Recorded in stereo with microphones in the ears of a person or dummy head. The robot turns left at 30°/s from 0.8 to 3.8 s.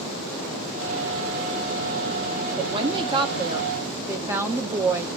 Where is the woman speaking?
125° right, 0.5 m; by 5.1 s 160° right, 0.5 m.